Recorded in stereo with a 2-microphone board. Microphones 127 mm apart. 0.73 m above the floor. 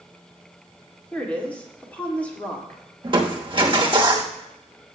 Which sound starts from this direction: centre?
A woman speaking, at 1.1 s.